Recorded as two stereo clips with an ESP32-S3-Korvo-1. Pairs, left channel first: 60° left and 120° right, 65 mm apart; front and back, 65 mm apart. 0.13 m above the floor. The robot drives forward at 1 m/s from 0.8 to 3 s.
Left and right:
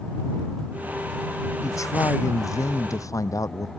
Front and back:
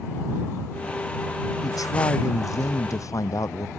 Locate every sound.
1.6 s a man speaking: 25° left; by 3.7 s 30° left